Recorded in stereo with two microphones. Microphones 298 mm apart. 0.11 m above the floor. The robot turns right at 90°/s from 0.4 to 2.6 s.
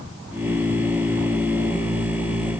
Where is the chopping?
No chopping in this recording.